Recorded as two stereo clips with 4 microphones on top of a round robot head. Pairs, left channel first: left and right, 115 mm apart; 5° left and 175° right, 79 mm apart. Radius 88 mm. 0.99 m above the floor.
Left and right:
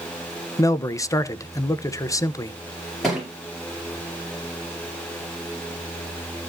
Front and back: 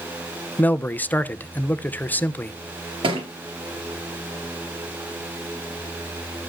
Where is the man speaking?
55° left, 0.9 m.